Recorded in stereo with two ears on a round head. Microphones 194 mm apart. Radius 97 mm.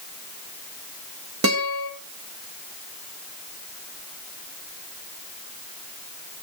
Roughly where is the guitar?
Right.